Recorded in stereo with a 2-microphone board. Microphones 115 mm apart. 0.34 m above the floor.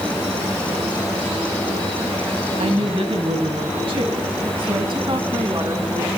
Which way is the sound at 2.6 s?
60° right (ahead or behind).